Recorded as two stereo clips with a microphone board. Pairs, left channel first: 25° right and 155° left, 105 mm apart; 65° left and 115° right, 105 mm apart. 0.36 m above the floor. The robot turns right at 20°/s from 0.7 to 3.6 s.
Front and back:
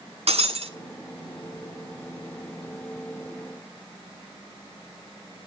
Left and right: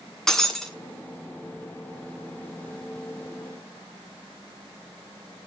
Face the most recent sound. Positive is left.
turn(degrees=-150)